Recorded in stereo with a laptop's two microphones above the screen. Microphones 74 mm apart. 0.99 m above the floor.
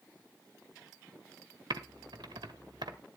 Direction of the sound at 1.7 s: 75° right (ahead or behind).